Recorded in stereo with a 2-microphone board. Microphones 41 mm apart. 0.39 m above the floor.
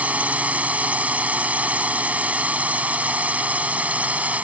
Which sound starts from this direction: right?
A drone, at 0.0 s.